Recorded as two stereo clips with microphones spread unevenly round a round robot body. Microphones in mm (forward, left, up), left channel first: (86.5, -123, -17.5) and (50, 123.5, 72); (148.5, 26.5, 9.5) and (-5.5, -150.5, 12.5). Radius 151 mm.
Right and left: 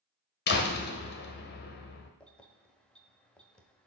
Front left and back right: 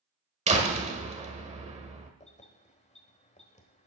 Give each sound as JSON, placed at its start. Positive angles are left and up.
{"t": 0.5, "sound": "a door slam", "azimuth_deg": -75, "distance_m": 1.3}
{"t": 2.2, "sound": "keys jangling", "azimuth_deg": -10, "distance_m": 1.4}